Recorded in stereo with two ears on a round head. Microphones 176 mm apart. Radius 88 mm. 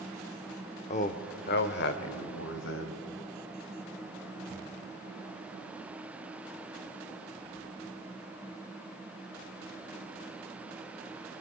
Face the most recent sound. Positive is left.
turn(degrees=70)  # may be behind; listen again after turning